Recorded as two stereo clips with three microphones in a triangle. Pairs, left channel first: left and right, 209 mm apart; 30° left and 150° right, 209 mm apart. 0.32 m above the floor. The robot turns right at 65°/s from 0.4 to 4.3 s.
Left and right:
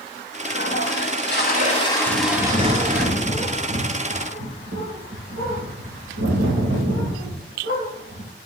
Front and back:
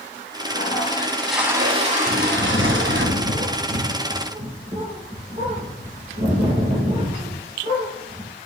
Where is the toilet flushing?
65° left, 1.2 m; by 3.1 s 125° right, 1.2 m.